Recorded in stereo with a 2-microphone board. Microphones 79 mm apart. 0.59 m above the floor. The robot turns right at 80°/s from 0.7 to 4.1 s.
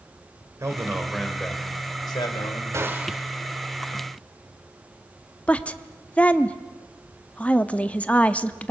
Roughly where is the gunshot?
Ahead right.